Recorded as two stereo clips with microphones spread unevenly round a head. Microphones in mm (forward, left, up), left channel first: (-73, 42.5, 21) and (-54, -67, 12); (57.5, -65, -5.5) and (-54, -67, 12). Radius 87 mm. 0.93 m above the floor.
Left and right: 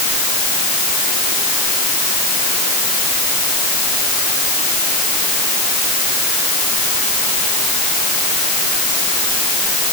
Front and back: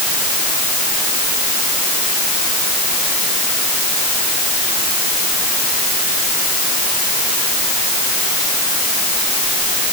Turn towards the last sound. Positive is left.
No sound to turn to.